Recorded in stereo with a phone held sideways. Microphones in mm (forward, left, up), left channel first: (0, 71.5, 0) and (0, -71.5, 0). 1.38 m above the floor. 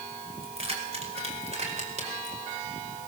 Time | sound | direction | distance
0.4 | keys jangling | 40° right (ahead or behind) | 5.5 m